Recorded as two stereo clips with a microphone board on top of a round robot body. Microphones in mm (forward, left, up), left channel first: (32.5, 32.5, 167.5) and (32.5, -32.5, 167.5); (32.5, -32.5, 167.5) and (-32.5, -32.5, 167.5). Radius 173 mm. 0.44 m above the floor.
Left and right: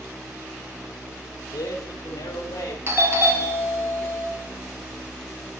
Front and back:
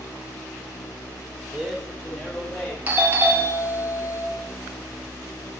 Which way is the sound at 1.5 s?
100° left.